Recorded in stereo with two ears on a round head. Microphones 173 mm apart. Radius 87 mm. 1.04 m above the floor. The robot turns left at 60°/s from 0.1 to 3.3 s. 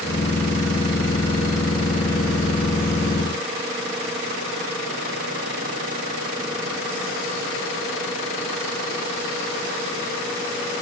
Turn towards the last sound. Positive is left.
No sound to turn to.